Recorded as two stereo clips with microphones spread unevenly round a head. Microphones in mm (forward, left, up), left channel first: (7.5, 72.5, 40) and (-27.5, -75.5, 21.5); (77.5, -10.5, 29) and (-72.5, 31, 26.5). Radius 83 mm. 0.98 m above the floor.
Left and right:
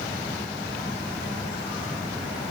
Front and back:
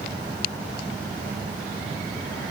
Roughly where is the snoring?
No snoring in this recording.